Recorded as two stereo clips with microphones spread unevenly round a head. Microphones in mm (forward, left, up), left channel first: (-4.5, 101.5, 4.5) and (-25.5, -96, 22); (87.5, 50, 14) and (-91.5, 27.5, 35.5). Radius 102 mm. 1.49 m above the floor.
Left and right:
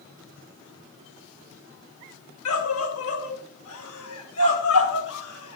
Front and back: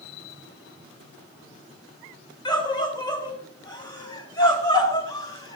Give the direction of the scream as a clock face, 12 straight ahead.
10 o'clock.